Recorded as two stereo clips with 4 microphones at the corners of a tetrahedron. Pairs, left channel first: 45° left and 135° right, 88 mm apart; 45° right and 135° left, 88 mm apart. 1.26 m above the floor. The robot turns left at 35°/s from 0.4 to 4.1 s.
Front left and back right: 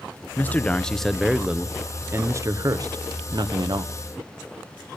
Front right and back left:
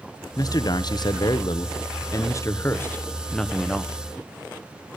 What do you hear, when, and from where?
0.4 s a man speaking: 20° right, 0.7 m; by 3.9 s 140° right, 0.7 m